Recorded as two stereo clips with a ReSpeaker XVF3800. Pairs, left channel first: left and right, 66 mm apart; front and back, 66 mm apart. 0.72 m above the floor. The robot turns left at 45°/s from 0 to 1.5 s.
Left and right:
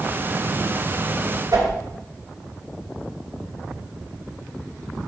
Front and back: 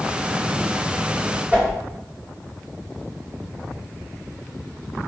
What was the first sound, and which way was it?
A whoosh, 115° right.